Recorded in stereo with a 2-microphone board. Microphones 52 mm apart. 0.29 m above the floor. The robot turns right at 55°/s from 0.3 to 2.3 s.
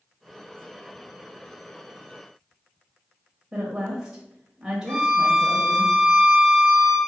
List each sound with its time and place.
3.5 s a woman speaking: 10° right (ahead or behind), 1.3 m
4.9 s a violin: 5° left (ahead or behind), 1.0 m